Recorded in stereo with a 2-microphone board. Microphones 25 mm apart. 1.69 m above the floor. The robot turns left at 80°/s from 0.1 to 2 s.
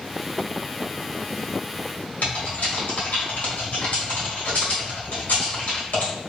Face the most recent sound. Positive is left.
turn(degrees=80)